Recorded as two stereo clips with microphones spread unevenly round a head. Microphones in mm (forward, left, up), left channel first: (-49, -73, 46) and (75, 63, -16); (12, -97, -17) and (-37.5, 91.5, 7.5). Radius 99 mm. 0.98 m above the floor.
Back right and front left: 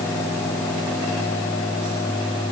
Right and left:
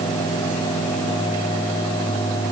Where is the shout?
No shout in this recording.